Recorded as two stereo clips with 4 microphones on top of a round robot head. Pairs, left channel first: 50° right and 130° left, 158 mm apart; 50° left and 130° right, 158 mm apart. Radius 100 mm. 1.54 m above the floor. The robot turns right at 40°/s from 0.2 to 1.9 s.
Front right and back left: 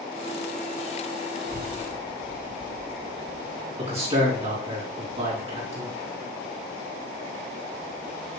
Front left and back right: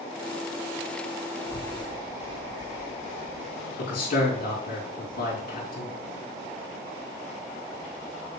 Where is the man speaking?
80° left, 3.5 m.